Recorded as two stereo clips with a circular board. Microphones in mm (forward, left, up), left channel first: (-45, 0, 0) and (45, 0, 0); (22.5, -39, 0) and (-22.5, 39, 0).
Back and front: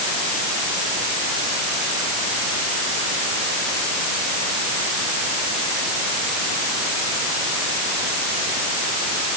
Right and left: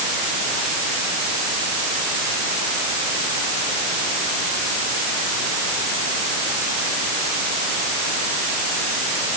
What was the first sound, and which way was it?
Only background noise.